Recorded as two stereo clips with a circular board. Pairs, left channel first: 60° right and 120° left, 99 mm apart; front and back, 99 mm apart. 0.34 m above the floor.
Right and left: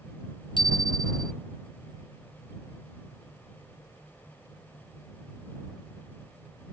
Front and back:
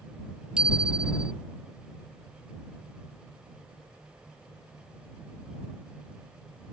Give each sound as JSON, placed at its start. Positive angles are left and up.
{"t": 0.6, "sound": "a bicycle bell", "azimuth_deg": -100}